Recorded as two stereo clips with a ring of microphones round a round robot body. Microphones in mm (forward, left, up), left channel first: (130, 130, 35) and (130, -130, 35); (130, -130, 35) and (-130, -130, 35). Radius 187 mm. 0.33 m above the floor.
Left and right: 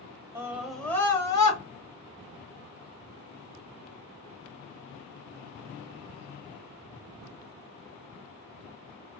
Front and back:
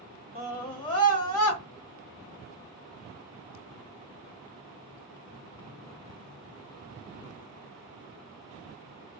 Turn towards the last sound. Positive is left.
turn(degrees=75)